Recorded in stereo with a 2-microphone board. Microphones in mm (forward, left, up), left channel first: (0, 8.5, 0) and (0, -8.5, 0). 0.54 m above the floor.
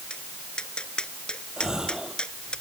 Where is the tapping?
75° left (ahead or behind).